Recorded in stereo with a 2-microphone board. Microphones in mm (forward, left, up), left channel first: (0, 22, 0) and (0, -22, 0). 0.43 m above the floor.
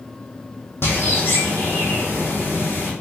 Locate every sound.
0.8 s a bird: 60° left (ahead or behind), 3 m